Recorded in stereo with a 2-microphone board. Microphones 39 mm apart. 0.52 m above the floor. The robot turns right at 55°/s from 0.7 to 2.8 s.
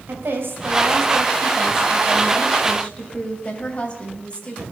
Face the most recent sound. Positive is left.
turn(degrees=35)